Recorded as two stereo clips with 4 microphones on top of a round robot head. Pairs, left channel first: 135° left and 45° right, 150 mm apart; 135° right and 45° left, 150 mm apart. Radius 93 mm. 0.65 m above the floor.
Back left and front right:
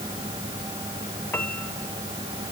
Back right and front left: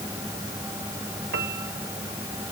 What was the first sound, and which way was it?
A piano, 55° left.